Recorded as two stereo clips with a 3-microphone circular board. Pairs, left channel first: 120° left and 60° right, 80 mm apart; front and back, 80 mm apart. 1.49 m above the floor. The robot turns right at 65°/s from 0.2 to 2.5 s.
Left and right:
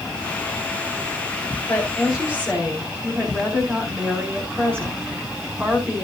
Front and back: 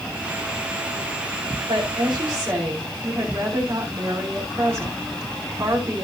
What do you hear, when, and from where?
1.7 s a woman speaking: 175° right, 5.5 m; by 6.0 s 125° right, 5.5 m